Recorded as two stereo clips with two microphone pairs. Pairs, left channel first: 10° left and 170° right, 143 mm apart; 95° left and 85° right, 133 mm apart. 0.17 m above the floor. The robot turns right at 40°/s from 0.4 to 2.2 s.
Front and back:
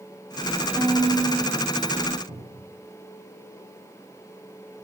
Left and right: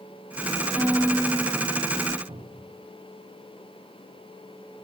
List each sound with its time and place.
0.8 s a violin: 145° left, 0.8 m; by 2.2 s 160° right, 0.8 m
2.3 s a cupboard door: 125° right, 9 m